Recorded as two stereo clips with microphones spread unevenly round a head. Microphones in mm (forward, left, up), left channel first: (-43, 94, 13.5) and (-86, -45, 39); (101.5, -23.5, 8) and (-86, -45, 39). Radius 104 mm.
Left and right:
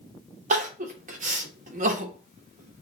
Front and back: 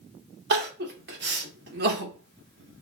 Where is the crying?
145° right, 1.0 m.